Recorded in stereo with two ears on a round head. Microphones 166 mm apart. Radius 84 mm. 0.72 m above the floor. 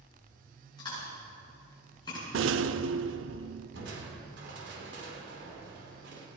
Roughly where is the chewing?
Left.